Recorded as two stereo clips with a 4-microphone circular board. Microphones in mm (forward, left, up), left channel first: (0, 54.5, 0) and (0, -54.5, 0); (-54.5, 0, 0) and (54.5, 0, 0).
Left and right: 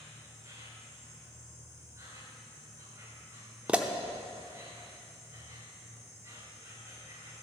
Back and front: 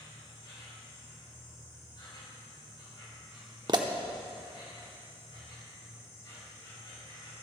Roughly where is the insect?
Behind right.